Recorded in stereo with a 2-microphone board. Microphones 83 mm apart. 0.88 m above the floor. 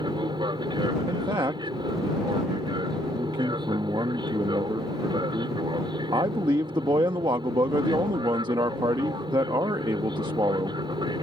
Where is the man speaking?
65° right (ahead or behind).